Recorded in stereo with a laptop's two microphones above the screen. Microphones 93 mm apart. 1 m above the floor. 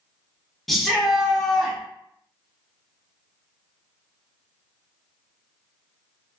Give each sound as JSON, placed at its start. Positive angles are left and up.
{"t": 0.7, "sound": "a shout", "side_deg": 0, "distance_m": 0.7}